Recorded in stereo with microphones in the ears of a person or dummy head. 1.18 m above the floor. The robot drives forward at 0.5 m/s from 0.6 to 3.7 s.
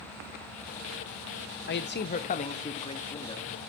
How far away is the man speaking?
About 0.6 m.